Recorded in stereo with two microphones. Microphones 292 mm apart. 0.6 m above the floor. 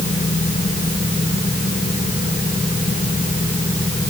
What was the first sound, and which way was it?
Only background noise.